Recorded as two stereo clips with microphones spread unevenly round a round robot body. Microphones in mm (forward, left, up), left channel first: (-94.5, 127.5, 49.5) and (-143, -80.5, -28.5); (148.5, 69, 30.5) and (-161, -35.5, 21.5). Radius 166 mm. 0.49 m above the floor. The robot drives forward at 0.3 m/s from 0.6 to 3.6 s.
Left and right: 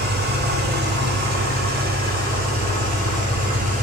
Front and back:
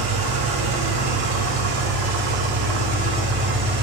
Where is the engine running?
120° right, 1.2 m; by 3.8 s 145° right, 1.8 m.